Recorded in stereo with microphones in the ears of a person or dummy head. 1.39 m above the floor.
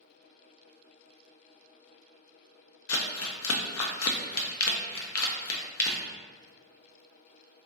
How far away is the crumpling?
About 0.6 m.